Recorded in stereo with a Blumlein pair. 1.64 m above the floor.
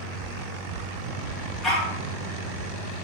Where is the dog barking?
15° left, 3.5 m.